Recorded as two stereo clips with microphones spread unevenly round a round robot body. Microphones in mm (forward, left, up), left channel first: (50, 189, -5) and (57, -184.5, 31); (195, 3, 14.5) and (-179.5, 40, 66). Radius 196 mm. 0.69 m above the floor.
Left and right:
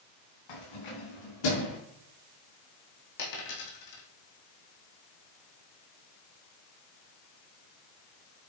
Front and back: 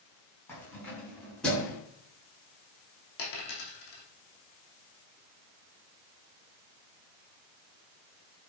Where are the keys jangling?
80° left, 4.5 m; by 1.8 s 85° left, 5.5 m.